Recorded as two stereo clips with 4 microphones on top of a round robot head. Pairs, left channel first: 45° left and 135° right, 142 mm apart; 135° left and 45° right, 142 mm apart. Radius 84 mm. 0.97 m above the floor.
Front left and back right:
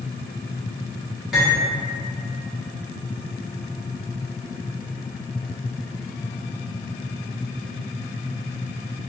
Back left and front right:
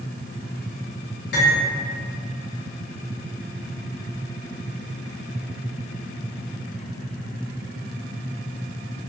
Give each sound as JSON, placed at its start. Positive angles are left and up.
{"t": 1.3, "sound": "cutlery clinking", "azimuth_deg": 135, "distance_m": 1.1}